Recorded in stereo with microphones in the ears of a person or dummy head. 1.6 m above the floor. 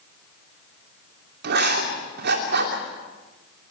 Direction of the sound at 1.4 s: 50° right (ahead or behind).